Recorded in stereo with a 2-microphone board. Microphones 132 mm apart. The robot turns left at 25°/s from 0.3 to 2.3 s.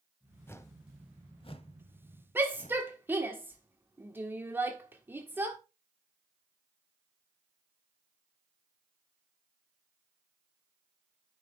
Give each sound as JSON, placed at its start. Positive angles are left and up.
{"t": 0.5, "sound": "a whoosh", "side_deg": 20, "distance_m": 0.8}
{"t": 2.4, "sound": "a shout", "side_deg": -15, "distance_m": 1.4}